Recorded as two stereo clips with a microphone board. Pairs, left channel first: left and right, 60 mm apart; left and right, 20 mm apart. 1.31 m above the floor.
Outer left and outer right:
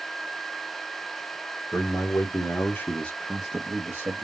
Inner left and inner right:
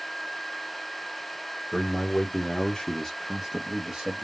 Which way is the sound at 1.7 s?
60° left (ahead or behind).